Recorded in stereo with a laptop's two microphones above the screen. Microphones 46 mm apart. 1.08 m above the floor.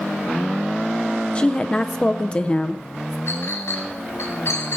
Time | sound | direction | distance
1.4 | a woman speaking | 25° left (ahead or behind) | 0.5 m
3.3 | a clink | 85° left | 4 m